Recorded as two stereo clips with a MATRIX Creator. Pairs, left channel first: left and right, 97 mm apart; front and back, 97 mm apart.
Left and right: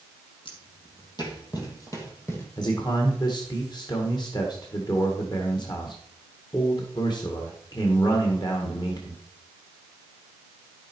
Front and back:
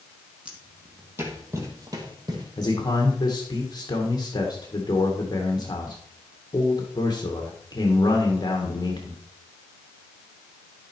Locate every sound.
0.5 s footsteps: 105° left, 2.5 m; by 2.5 s 150° left, 2.5 m
2.6 s a man speaking: 45° left, 1.7 m